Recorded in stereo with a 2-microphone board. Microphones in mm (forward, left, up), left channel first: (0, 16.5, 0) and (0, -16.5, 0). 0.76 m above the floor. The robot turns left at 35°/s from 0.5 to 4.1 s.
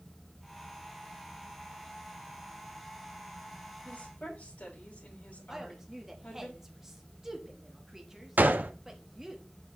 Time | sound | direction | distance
3.9 | a woman speaking | 55° left (ahead or behind) | 4 m
5.5 | a woman speaking | 15° right (ahead or behind) | 1.3 m
8.4 | a gunshot | 60° right (ahead or behind) | 0.5 m